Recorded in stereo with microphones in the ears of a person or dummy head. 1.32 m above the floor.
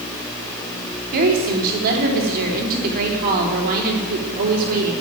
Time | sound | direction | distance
1.1 | a woman speaking | 45° right (ahead or behind) | 3.5 m